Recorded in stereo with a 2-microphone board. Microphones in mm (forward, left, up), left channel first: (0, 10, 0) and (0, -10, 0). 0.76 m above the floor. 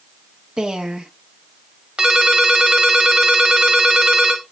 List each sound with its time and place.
0.6 s a woman speaking: 50° right (ahead or behind), 0.9 m
2.0 s a ringtone: 65° right (ahead or behind), 1.6 m